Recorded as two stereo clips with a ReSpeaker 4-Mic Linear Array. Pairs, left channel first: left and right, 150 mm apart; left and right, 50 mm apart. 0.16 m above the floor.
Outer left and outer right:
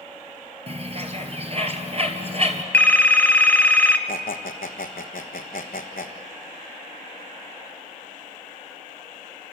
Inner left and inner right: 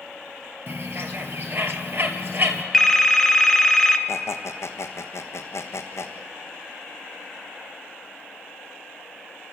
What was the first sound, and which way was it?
A bird, 45° right (ahead or behind).